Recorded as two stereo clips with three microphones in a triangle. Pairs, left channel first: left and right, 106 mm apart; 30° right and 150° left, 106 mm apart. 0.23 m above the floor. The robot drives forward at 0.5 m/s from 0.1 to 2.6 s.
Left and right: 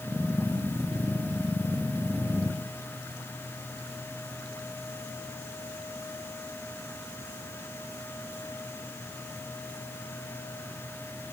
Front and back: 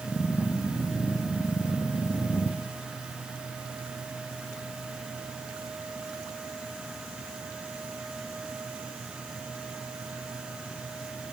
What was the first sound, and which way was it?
Only background noise.